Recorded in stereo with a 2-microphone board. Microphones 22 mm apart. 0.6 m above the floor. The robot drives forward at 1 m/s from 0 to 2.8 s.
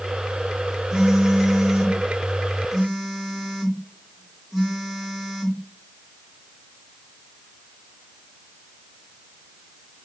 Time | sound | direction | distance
0.9 | a phone buzzing | 40° right (ahead or behind) | 1.2 m